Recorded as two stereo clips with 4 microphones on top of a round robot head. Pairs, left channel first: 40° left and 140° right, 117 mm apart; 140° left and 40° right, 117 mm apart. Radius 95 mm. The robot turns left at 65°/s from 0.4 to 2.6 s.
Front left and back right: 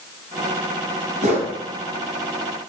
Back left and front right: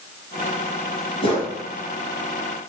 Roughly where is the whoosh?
Behind.